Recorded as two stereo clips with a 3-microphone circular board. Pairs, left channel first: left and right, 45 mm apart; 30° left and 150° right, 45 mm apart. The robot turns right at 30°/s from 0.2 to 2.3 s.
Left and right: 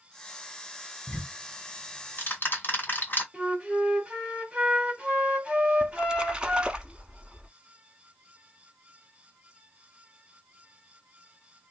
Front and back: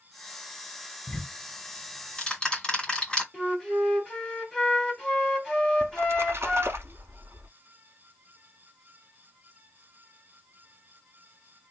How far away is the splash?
About 0.8 m.